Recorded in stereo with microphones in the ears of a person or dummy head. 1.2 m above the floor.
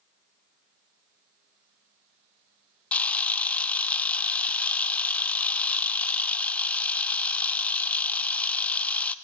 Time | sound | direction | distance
2.9 | a camera shutter | 5° left (ahead or behind) | 0.9 m